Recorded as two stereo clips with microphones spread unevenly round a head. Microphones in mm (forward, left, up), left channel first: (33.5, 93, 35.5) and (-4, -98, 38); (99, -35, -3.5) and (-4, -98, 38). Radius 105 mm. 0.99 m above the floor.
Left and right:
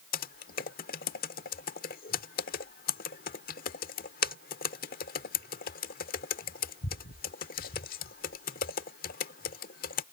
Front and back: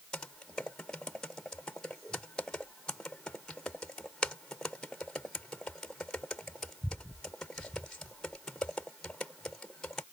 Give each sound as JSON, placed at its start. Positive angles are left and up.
{"t": 0.1, "sound": "typing on a keyboard", "azimuth_deg": 125}